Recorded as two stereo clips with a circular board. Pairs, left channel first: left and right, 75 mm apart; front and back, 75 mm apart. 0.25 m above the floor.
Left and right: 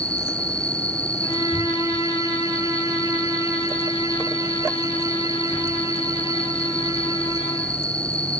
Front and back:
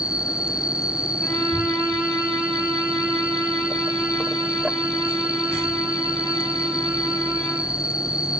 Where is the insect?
130° left, 0.9 m.